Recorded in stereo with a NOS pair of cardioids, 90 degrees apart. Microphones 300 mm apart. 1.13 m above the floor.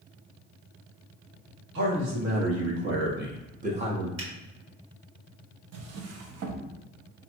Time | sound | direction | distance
1.8 | a man speaking | 70° right | 1.6 m
4.2 | a finger snap | 60° right | 1.8 m
5.7 | a drawer | 65° right | 0.7 m